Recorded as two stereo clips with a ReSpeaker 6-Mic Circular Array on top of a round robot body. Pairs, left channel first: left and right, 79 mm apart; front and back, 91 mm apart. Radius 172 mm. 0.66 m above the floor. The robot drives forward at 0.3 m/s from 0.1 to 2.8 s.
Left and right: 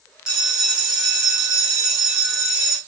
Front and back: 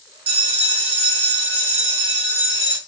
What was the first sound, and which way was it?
A bell, 170° right.